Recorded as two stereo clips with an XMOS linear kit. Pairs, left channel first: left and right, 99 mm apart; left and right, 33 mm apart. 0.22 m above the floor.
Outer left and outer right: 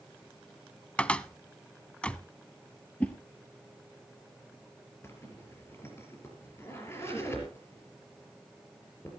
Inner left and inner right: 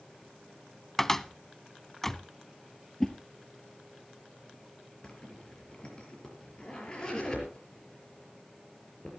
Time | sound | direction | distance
1.0 | a cupboard door | 10° left (ahead or behind) | 0.5 m
3.0 | a whoosh | 15° left (ahead or behind) | 2.0 m
5.0 | a zipper | 25° left (ahead or behind) | 5 m